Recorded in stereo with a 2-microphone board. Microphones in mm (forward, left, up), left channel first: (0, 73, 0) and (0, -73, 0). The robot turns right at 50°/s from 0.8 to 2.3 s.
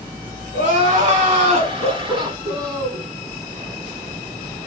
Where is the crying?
110° right, 1.2 m; by 3.0 s 35° right, 1.2 m.